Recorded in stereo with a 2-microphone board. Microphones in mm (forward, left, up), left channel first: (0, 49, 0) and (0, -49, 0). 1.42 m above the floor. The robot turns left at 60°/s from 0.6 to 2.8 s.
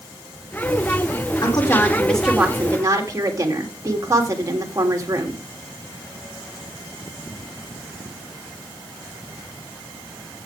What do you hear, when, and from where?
1.4 s a woman speaking: 50° left, 3 m; by 5.4 s 35° right, 3 m